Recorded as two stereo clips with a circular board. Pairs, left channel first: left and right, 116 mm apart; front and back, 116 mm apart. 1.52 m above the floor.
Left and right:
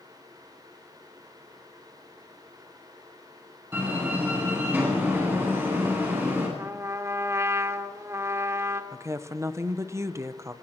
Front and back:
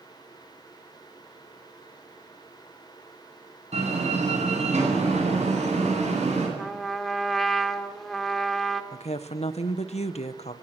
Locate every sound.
3.7 s a door slam: 160° right, 10 m
6.6 s a trumpet: 85° right, 1.2 m
8.9 s a woman speaking: 25° right, 1.2 m